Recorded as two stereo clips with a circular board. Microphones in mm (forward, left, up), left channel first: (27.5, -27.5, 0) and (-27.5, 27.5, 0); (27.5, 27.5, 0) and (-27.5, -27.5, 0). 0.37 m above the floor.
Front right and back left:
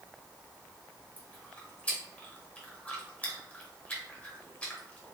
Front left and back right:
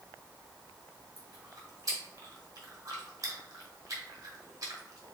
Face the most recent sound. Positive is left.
turn(degrees=-110)